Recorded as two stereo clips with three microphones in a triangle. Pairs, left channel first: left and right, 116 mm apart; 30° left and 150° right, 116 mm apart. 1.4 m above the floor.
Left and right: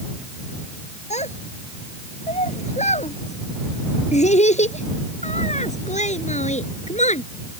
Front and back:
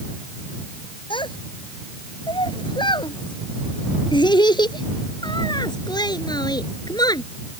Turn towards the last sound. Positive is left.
turn(degrees=85)